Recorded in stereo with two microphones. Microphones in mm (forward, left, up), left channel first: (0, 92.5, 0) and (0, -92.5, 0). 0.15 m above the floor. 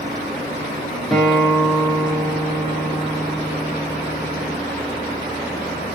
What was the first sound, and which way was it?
A guitar, centre (ahead or behind).